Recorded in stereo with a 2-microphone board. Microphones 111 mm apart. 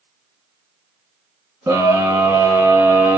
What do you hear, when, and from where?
1.7 s a scream: 20° right (ahead or behind), 1.9 m